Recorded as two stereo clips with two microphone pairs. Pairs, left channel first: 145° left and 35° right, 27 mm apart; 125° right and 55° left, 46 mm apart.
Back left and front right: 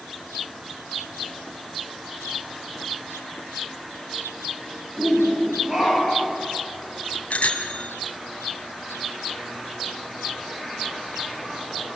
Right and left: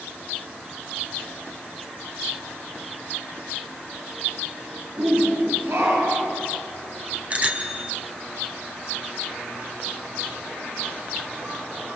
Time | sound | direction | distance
5.0 | a shout | 35° left | 9.5 m
7.3 | a bicycle bell | 115° left | 2.5 m